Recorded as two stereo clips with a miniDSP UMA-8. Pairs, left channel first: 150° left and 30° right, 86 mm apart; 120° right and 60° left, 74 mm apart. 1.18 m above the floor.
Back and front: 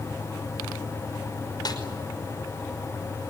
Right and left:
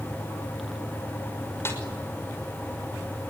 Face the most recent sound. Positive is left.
turn(degrees=-175)